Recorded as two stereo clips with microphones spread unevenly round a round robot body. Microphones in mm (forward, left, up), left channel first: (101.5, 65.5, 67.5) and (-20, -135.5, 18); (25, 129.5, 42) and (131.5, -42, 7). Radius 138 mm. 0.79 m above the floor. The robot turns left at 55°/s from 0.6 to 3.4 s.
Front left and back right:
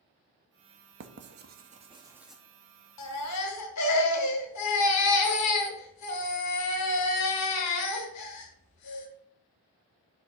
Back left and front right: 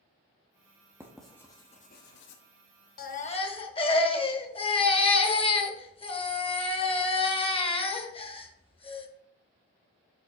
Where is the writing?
130° right, 0.7 m; by 2.4 s 150° left, 0.7 m.